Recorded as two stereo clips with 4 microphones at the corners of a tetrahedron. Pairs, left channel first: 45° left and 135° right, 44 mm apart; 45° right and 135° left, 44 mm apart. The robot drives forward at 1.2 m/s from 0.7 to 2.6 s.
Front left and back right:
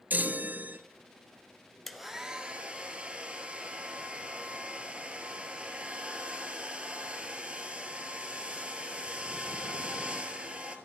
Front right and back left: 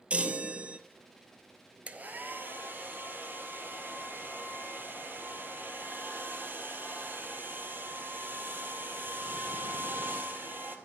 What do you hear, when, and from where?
0.1 s a chime: 170° right, 0.6 m
1.9 s a hair dryer: 125° left, 0.8 m; by 10.8 s 160° left, 1.4 m